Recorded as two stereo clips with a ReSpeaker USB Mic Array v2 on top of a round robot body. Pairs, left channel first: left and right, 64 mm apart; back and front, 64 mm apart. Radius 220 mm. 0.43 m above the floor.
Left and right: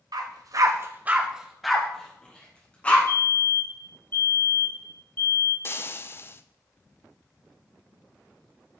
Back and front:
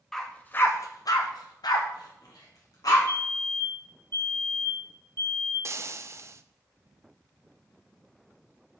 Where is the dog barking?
95° right, 1.1 m; by 3.0 s 155° left, 2.5 m.